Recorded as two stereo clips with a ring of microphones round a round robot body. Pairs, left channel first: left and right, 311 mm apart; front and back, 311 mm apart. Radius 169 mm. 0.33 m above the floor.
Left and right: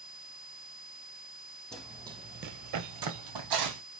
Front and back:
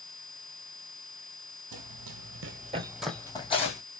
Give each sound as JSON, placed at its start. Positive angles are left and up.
{"t": 1.7, "sound": "running footsteps", "azimuth_deg": 175, "distance_m": 0.8}